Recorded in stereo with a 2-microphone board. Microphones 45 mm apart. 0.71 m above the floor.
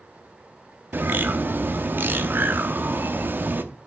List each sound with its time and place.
0.9 s a bird: 50° right (ahead or behind), 0.8 m